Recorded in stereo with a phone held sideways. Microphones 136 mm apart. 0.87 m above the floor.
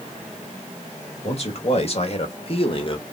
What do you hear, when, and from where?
1.2 s a man speaking: 50° left (ahead or behind), 1.9 m; by 3.1 s 35° left (ahead or behind), 1.1 m